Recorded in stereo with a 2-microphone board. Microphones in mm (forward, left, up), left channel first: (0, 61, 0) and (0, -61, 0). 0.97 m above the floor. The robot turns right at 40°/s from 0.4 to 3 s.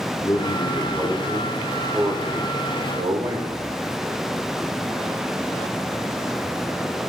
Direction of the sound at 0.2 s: 135° left.